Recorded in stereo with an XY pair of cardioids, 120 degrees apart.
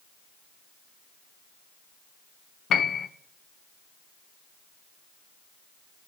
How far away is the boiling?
I don't hear boiling.